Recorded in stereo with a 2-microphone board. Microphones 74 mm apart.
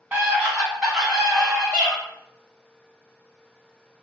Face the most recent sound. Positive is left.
turn(degrees=20)  # may be behind; listen again after turning